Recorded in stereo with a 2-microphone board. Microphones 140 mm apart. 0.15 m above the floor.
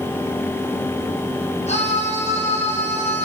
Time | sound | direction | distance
1.7 | a scream | 50° left (ahead or behind) | 5.5 m